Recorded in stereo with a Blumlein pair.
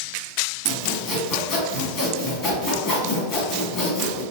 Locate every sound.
0.7 s sawing: 30° left, 1.9 m